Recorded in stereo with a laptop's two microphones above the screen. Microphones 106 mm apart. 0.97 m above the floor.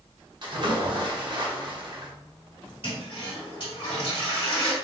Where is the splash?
45° right (ahead or behind), 0.6 m.